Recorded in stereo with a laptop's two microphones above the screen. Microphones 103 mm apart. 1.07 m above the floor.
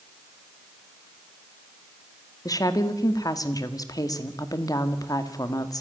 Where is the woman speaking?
40° left (ahead or behind), 1.9 m.